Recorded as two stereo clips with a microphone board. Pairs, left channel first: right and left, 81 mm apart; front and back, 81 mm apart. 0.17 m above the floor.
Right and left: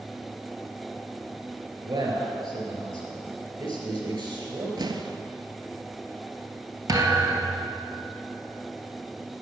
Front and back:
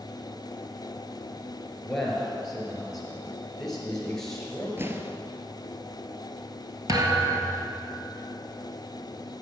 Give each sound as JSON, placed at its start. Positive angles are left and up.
{"t": 1.8, "sound": "a man speaking", "azimuth_deg": 85, "distance_m": 3.5}
{"t": 4.8, "sound": "an explosion", "azimuth_deg": 120, "distance_m": 0.7}
{"t": 6.9, "sound": "a thud", "azimuth_deg": 135, "distance_m": 1.4}